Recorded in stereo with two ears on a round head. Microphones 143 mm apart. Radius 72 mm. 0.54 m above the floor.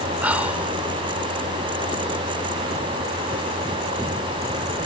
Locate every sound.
0.2 s whispering: 10° right (ahead or behind), 1.3 m